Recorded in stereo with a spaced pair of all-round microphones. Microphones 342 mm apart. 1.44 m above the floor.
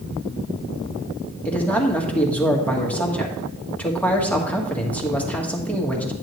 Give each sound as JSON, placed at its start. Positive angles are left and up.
{"t": 1.4, "sound": "a man speaking", "side_deg": 5, "distance_m": 1.6}